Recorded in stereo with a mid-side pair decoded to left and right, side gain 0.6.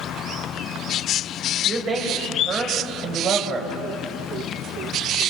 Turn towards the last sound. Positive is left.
turn(degrees=-35)